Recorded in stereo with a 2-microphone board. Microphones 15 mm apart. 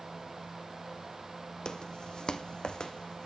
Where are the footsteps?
65° left (ahead or behind), 1.0 m; by 3.3 s 80° left, 1.5 m.